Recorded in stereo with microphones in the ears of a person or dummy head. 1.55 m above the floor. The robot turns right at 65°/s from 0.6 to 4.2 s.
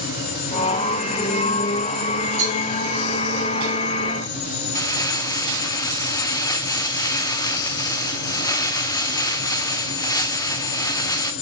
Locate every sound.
2.4 s a cowbell: 35° right (ahead or behind), 5 m; by 2.6 s 50° right (ahead or behind), 5 m
4.8 s crumpling: 25° left (ahead or behind), 0.7 m